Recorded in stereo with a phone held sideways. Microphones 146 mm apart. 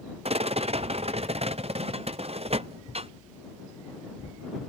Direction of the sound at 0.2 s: 50° right (ahead or behind).